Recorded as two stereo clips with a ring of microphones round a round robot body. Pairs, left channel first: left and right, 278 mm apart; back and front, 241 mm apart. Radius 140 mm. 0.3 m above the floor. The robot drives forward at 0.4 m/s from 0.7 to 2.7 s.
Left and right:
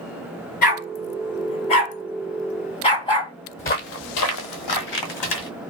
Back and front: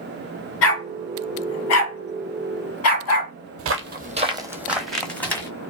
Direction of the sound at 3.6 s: 25° left.